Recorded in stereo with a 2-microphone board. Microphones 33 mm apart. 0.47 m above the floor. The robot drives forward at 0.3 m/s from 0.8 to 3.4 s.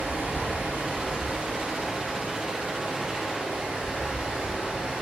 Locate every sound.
0.0 s running water: 70° right (ahead or behind), 0.9 m; by 5.0 s 40° right (ahead or behind), 1.4 m